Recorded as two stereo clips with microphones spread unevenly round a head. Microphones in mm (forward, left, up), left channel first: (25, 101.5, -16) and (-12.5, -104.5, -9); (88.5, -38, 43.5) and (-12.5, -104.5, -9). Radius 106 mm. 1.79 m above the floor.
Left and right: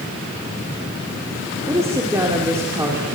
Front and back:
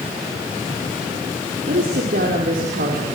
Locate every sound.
1.7 s a woman speaking: 175° right, 5 m